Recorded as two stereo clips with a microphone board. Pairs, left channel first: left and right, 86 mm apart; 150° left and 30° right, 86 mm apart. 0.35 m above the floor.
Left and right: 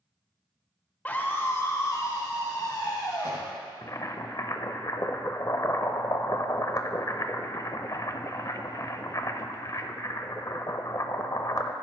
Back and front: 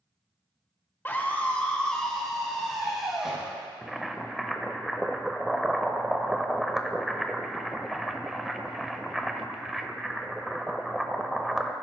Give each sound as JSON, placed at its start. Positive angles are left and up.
{"t": 1.1, "sound": "a scream", "azimuth_deg": 130, "distance_m": 1.2}
{"t": 3.8, "sound": "boiling", "azimuth_deg": 60, "distance_m": 0.6}